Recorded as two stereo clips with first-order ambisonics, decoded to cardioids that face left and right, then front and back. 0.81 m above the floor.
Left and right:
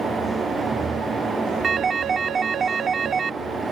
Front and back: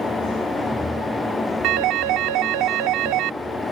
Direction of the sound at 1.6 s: 155° right.